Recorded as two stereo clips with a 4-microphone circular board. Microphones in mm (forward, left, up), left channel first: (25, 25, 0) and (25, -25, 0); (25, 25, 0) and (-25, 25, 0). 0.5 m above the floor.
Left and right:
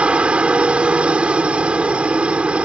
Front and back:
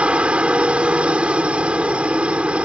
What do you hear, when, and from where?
0.0 s a helicopter: 135° right